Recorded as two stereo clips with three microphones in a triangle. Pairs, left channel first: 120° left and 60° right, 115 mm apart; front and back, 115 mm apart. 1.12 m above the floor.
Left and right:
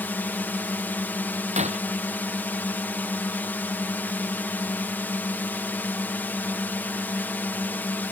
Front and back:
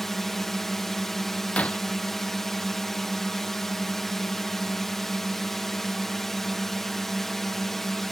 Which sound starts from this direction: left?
A drone, at 0.0 s.